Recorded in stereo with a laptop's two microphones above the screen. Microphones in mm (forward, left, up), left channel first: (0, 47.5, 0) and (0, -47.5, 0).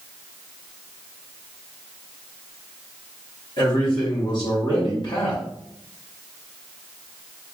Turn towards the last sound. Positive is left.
turn(degrees=50)  # may be behind; listen again after turning